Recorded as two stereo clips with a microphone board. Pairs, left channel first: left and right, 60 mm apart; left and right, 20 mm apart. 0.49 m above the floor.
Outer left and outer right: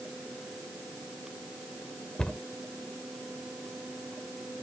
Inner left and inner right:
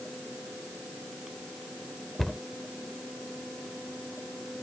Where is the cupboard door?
15° left (ahead or behind).